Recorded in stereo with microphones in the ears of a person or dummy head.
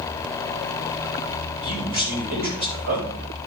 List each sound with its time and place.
1.6 s a man speaking: 55° right (ahead or behind), 8 m